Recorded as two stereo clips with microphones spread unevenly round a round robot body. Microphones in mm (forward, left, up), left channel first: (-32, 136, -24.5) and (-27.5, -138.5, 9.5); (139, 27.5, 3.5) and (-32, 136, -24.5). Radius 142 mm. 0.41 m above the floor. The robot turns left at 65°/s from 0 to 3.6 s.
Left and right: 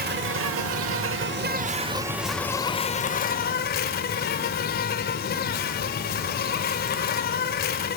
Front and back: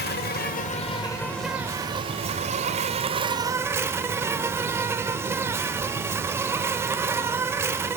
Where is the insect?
40° right, 0.8 m; by 8.0 s 85° left, 0.8 m.